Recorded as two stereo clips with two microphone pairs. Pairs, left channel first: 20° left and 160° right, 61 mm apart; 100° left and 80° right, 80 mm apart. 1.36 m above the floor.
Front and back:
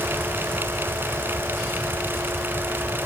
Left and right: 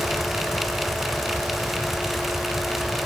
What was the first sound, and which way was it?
Only background noise.